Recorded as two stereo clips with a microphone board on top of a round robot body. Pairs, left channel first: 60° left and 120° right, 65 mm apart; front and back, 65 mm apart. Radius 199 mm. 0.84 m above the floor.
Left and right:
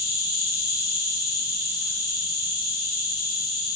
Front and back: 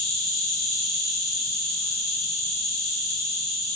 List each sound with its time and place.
0.0 s an insect: 60° right, 0.9 m